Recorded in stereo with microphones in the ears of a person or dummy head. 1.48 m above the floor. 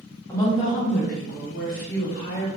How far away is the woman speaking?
About 0.6 m.